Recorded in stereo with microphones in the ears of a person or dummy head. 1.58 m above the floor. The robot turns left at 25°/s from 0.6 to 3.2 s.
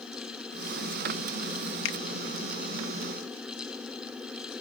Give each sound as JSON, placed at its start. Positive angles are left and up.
{"t": 1.9, "sound": "a finger snap", "side_deg": 70}